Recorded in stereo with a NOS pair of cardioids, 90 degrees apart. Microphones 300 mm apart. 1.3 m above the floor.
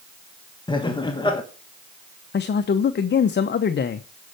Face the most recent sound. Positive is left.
turn(degrees=40)